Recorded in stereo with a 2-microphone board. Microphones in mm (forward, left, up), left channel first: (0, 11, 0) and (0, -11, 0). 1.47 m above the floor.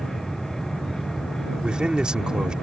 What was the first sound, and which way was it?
A man speaking, 40° right (ahead or behind).